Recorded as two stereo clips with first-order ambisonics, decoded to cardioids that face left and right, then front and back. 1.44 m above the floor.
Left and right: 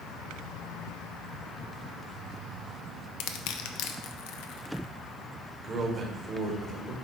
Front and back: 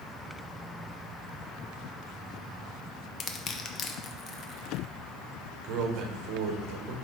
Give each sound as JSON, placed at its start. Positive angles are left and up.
{"t": 3.2, "sound": "crushing", "azimuth_deg": 60, "distance_m": 0.6}
{"t": 5.6, "sound": "a man speaking", "azimuth_deg": -155, "distance_m": 1.4}